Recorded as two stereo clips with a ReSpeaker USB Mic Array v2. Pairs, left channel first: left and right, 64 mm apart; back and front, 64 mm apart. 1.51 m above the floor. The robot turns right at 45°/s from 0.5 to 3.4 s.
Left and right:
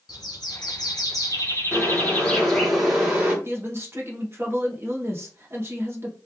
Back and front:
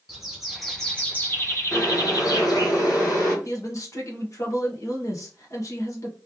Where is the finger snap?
I don't hear a finger snap.